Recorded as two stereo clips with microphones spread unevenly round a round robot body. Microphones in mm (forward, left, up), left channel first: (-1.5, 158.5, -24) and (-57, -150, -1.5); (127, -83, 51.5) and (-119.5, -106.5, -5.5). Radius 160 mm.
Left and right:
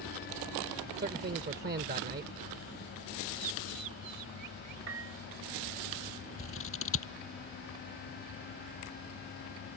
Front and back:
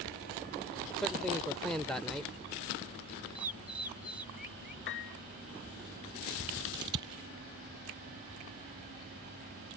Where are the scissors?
130° left.